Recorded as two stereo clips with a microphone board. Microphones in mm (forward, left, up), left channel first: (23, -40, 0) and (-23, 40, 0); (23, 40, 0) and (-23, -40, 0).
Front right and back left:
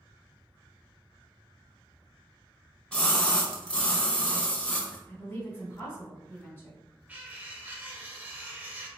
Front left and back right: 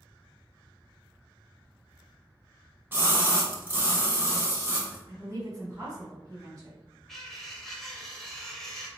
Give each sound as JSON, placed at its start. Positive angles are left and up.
{"t": 2.9, "sound": "a splash", "azimuth_deg": -120, "distance_m": 0.6}
{"t": 5.1, "sound": "a woman speaking", "azimuth_deg": -110, "distance_m": 1.1}
{"t": 7.1, "sound": "cutlery clinking", "azimuth_deg": 140, "distance_m": 0.5}